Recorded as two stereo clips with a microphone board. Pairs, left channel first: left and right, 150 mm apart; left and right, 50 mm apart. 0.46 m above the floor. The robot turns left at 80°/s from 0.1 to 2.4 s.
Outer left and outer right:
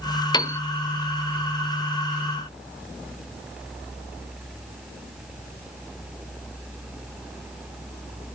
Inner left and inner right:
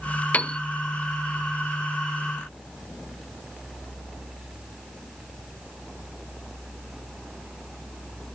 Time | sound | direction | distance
0.3 | a piano | 30° left (ahead or behind) | 0.7 m